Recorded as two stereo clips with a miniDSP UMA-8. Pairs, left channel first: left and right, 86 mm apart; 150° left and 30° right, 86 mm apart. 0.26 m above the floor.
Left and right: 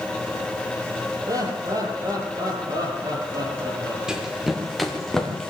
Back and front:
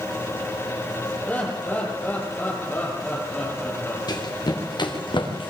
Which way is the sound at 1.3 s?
135° right.